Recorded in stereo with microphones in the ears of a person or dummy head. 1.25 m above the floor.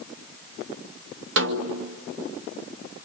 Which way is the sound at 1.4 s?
55° right (ahead or behind).